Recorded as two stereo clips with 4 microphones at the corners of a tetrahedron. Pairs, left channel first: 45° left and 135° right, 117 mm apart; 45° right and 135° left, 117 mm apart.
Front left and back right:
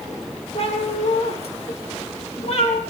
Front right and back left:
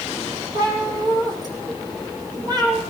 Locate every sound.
0.6 s a cat meowing: 80° left, 4.5 m